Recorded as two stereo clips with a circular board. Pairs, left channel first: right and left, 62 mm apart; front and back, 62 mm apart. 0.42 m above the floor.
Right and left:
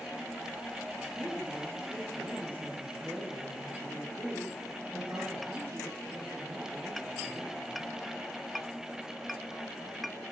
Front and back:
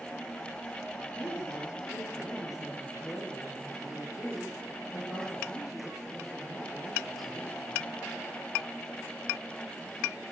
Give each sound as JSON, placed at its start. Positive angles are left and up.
{"t": 1.0, "sound": "a woman speaking", "azimuth_deg": 30, "distance_m": 9.5}